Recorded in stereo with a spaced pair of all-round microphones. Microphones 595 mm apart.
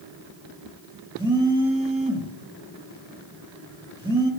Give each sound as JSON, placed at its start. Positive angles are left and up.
{"t": 1.2, "sound": "a phone buzzing", "side_deg": -10, "distance_m": 2.0}